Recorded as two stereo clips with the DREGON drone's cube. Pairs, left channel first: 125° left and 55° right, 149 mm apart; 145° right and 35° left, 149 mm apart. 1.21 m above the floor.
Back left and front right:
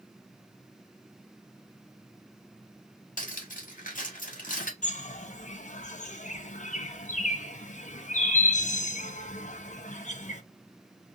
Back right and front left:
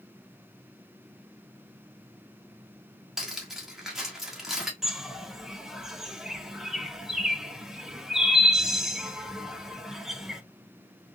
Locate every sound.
3.2 s cutlery clinking: 120° left, 1.3 m
4.8 s a bird: 120° left, 0.6 m